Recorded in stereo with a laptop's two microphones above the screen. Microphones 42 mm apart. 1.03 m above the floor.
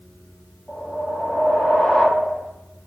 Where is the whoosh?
25° left (ahead or behind), 1.0 m.